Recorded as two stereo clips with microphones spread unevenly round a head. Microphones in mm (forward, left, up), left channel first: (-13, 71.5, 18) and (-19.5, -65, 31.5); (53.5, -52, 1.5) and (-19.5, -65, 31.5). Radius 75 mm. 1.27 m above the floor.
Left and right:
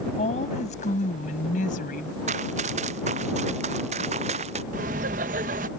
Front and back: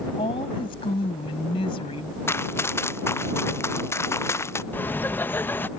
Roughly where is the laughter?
Ahead right.